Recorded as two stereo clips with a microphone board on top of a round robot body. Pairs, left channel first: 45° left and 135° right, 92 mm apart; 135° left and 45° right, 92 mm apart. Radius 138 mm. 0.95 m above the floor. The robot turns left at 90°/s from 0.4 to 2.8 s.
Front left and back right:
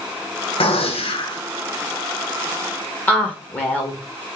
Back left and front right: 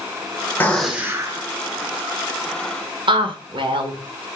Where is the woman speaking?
30° right, 1.5 m.